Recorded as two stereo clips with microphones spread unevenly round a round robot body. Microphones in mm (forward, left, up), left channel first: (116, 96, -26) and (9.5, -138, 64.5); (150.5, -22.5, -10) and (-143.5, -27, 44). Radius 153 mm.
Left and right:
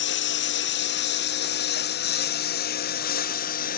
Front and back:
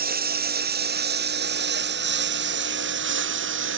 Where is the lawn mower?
120° left; by 3.8 s 130° left.